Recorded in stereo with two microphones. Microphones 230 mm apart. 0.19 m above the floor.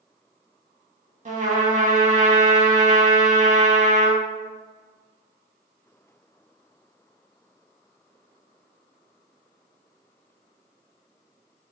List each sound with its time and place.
1.2 s a trumpet: 35° right (ahead or behind), 0.5 m